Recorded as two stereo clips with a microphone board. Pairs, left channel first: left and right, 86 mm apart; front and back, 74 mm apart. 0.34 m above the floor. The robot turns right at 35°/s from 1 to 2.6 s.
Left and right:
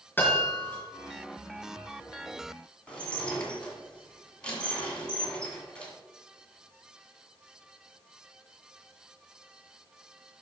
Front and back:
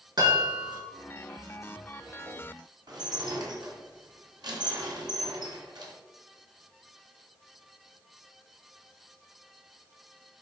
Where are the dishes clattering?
165° left, 2 m.